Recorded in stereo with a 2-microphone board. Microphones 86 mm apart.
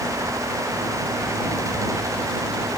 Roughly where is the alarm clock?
No alarm clock in this recording.